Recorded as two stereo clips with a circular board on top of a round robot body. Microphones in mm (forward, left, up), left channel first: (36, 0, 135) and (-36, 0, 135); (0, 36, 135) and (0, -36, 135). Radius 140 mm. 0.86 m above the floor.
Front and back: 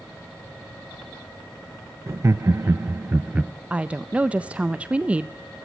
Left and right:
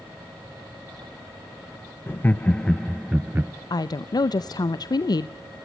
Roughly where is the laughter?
Behind left.